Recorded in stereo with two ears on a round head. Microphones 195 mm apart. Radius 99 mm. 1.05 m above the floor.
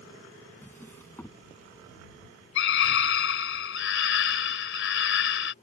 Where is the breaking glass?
I don't hear breaking glass.